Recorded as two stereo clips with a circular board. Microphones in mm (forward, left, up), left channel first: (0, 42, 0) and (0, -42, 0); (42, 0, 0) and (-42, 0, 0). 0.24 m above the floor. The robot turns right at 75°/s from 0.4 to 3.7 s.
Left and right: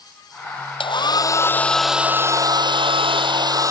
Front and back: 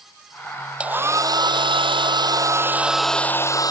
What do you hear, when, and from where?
0.8 s a hair dryer: 100° left; by 3.7 s 40° right